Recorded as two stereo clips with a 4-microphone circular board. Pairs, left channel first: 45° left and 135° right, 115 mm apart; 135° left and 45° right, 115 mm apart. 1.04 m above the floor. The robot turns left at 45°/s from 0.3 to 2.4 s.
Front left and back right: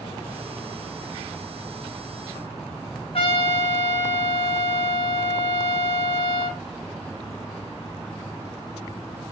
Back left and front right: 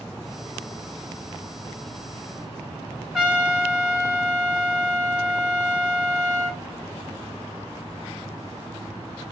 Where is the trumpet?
40° left, 1.6 m.